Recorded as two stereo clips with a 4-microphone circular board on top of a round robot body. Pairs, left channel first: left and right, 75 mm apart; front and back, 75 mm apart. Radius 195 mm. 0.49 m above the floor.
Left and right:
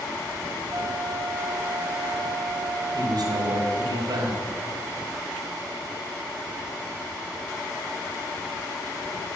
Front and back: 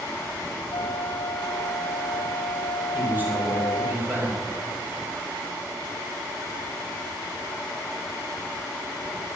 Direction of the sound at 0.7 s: 30° right.